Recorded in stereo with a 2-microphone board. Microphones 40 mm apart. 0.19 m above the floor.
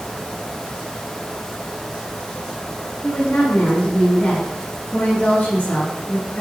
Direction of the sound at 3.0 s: 50° left (ahead or behind).